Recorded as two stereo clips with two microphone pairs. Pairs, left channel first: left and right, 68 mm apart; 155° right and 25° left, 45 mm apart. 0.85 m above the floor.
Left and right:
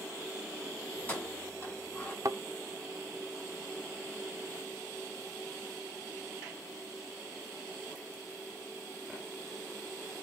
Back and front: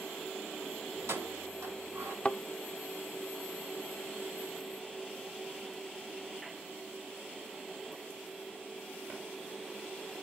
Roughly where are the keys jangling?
Ahead left.